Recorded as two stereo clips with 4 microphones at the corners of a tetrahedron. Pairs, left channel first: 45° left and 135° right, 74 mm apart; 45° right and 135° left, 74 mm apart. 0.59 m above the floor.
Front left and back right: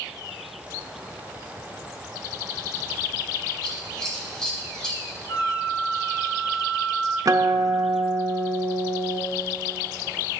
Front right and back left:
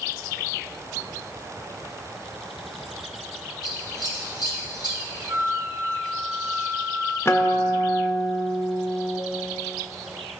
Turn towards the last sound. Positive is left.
turn(degrees=-100)